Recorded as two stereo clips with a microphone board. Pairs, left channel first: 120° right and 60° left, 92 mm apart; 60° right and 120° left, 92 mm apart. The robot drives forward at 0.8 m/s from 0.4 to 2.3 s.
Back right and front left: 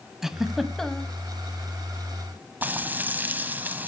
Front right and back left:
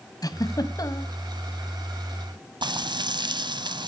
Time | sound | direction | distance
0.2 | a giggle | 25° right | 1.4 m
2.6 | frying | 125° left | 1.2 m